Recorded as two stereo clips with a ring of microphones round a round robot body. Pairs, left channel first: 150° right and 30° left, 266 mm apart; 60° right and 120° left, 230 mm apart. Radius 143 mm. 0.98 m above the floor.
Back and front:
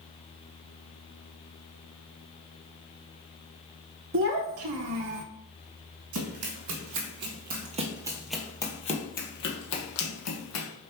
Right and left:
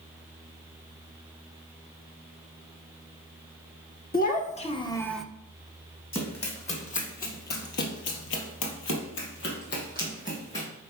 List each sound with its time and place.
4.1 s a child speaking: 10° right, 1.4 m; by 5.2 s 30° left, 0.8 m
6.1 s running footsteps: 5° left, 3 m; by 10.7 s 125° right, 3 m